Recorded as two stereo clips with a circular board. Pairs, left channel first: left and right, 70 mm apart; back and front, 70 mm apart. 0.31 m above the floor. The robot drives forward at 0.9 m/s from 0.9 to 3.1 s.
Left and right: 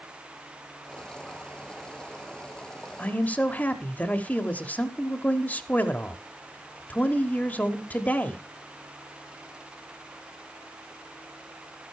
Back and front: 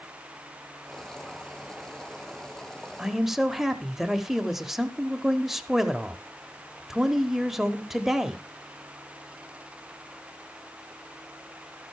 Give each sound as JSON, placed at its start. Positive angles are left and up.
{"t": 3.0, "sound": "a man speaking", "azimuth_deg": 65, "distance_m": 1.0}